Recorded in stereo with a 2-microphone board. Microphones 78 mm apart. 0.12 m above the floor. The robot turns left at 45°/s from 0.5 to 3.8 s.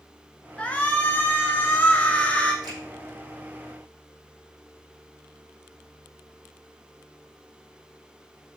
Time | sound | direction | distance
0.6 | a shout | 15° left (ahead or behind) | 1.3 m
2.6 | a finger snap | 60° right (ahead or behind) | 5 m